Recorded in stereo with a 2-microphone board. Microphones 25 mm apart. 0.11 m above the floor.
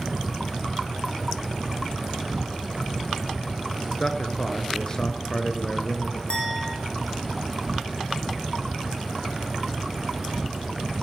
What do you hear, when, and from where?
0.0 s an insect: 20° right (ahead or behind), 1.4 m
4.0 s a man speaking: 25° left (ahead or behind), 2 m
6.3 s a clink: 35° left (ahead or behind), 4.5 m